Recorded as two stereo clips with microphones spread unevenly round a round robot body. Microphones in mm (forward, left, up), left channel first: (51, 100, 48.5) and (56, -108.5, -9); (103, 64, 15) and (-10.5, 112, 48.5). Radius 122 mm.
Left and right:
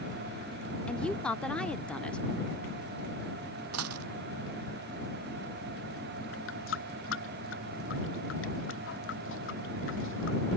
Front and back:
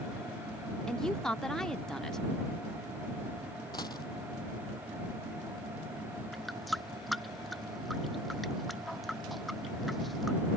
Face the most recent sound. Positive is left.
turn(degrees=65)